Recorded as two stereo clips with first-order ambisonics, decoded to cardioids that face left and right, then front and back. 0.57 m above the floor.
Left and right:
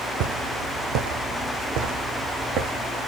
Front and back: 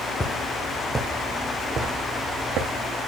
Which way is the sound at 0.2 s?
75° right.